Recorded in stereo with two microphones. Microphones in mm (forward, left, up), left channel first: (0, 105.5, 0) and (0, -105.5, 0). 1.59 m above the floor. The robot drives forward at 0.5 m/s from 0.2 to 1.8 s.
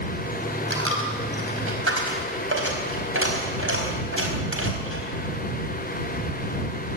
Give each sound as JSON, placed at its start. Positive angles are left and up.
{"t": 0.7, "sound": "a dropped coin", "side_deg": -70, "distance_m": 4.5}